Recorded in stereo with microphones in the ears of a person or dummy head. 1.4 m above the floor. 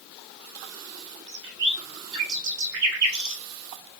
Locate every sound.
1.3 s a bird: 60° right (ahead or behind), 0.9 m